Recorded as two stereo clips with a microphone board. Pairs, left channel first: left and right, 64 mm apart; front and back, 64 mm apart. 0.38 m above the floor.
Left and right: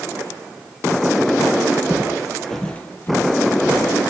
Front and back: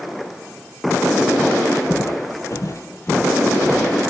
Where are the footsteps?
30° right, 0.6 m; by 4.1 s 65° left, 1.2 m.